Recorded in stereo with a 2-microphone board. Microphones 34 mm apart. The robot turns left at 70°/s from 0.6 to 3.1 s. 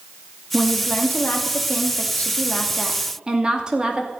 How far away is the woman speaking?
About 2 m.